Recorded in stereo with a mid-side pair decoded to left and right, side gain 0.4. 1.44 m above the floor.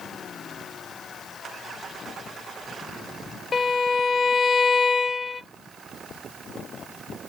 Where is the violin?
40° left, 0.7 m.